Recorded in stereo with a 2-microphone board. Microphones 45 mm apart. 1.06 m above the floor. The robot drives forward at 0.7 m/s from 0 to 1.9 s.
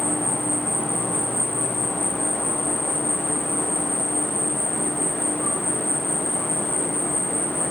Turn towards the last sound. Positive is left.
turn(degrees=80)